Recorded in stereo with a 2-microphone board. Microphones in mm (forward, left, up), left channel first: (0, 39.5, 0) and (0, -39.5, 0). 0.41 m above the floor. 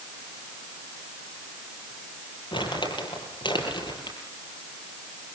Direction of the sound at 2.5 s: 75° left (ahead or behind).